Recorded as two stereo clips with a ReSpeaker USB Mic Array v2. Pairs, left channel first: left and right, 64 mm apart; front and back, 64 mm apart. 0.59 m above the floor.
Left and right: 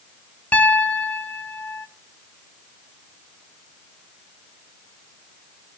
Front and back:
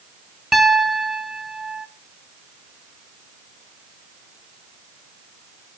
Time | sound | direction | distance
0.5 | a piano | 100° left | 0.6 m